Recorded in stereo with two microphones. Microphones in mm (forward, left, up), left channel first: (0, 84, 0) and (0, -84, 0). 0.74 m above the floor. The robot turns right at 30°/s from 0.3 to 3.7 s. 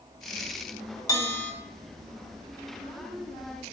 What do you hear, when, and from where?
1.1 s a bell: 20° left (ahead or behind), 2 m; by 1.5 s 10° left (ahead or behind), 2 m